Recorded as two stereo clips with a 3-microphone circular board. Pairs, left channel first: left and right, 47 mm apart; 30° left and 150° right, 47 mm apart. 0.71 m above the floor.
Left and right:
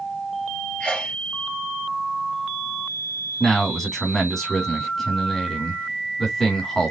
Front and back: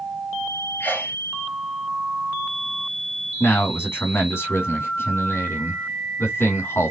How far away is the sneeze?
About 1.5 m.